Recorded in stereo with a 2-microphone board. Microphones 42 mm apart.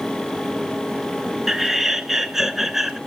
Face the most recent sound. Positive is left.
turn(degrees=-10)  # may be behind; listen again after turning